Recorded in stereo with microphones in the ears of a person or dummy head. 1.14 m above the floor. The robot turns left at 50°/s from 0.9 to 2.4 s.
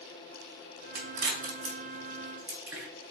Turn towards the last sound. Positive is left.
turn(degrees=-15)  # may be behind; listen again after turning